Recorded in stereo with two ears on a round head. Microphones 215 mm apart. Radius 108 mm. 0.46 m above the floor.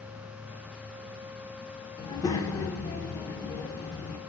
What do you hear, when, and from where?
2.0 s a child speaking: 15° left (ahead or behind), 0.8 m